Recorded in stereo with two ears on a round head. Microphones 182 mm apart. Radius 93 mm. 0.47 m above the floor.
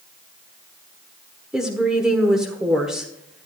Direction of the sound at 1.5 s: 5° right (ahead or behind).